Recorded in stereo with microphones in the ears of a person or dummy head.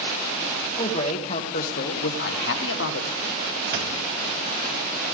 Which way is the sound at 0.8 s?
35° left (ahead or behind).